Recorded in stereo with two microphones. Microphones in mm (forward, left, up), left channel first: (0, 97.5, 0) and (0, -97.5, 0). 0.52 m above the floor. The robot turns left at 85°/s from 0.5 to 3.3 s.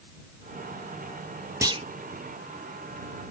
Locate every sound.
1.6 s a clunk: 15° right (ahead or behind); by 1.8 s 35° right (ahead or behind)